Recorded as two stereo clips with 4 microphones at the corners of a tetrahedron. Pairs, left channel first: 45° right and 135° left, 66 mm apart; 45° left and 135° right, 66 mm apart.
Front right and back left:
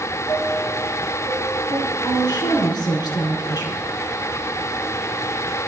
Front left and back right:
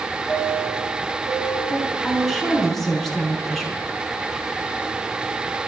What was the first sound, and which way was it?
A chime, 40° right.